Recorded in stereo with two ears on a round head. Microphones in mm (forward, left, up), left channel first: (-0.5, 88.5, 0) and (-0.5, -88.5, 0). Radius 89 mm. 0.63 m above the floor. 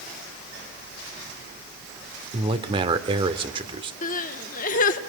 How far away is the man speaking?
About 1.4 m.